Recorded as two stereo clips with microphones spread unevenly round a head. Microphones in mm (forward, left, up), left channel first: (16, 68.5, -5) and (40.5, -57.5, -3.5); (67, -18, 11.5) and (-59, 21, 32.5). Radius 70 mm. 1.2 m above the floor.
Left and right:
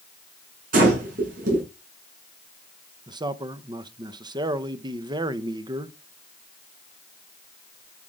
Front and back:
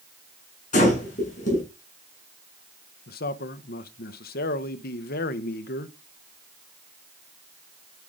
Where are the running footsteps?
No running footsteps in this recording.